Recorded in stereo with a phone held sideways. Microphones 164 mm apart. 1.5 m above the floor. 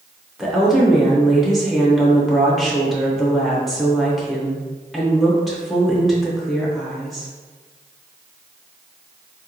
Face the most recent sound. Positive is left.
turn(degrees=0)  # may be behind; listen again after turning